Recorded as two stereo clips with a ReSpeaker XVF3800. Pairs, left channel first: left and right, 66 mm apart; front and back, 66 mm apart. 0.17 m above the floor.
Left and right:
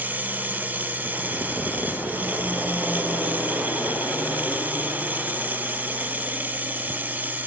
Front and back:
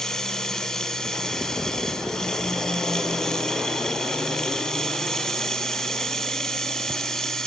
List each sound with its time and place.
0.0 s running water: 75° right, 0.9 m